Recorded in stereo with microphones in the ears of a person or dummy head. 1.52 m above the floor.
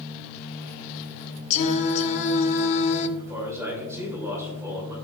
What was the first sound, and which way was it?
Singing, 35° left (ahead or behind).